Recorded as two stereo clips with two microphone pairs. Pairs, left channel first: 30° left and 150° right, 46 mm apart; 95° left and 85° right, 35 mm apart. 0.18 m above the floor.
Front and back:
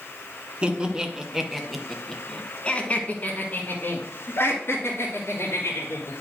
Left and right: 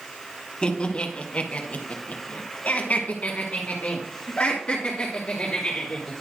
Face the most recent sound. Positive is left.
turn(degrees=35)